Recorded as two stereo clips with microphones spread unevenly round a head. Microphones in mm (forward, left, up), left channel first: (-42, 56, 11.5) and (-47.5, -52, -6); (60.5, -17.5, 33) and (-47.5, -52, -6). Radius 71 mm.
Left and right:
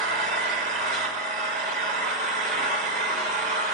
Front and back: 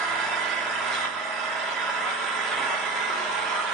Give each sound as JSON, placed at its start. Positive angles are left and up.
{"t": 0.0, "sound": "an engine running", "azimuth_deg": -70, "distance_m": 2.5}